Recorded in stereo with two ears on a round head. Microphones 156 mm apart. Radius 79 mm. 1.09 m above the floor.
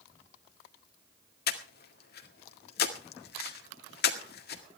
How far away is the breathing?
About 1.9 m.